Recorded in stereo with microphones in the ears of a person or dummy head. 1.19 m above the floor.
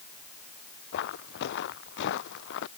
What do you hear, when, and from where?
0.9 s footsteps: 65° left (ahead or behind); by 2.7 s 70° left (ahead or behind)